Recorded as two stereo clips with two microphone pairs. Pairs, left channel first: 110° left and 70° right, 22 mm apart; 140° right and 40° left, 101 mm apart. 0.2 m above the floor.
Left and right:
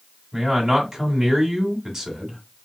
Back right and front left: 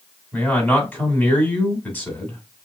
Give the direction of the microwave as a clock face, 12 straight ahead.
No microwave in this recording.